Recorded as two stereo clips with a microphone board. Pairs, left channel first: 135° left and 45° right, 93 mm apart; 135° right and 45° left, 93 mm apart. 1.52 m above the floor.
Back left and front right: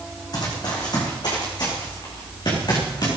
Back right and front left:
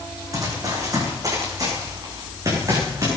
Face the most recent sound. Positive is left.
turn(degrees=95)